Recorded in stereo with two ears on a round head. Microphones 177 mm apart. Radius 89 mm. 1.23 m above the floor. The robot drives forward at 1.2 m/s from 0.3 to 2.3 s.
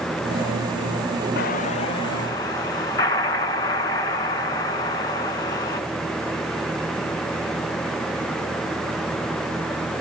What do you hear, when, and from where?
1.4 s an explosion: 50° left (ahead or behind), 0.5 m; by 5.8 s 20° left (ahead or behind), 1.4 m